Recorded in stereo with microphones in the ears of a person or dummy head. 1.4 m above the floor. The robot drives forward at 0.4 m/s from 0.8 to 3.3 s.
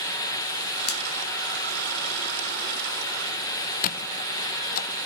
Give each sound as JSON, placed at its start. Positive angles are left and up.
{"t": 0.9, "sound": "a finger snap", "side_deg": 50, "distance_m": 1.5}
{"t": 3.8, "sound": "a squeak", "side_deg": 45, "distance_m": 0.7}